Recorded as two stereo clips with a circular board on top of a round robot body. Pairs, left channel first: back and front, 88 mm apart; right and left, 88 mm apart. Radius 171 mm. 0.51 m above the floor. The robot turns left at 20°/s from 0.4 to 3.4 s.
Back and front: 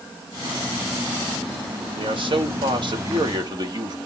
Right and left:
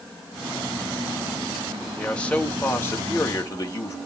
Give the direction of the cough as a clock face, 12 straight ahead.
No cough in this recording.